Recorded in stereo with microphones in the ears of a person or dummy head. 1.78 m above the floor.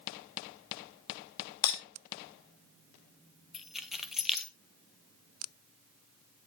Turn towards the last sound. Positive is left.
turn(degrees=0)  # may be behind; listen again after turning